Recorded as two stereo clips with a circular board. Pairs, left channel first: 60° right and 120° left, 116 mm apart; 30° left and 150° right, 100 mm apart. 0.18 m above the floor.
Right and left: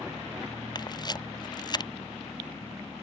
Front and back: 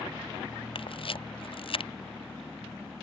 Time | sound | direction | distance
0.8 | a camera shutter | 5° right | ?